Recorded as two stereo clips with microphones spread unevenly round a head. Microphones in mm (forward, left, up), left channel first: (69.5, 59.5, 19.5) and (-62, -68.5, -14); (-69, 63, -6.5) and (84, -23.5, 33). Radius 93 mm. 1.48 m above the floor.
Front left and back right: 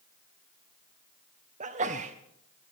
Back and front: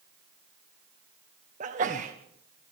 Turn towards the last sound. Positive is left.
turn(degrees=-85)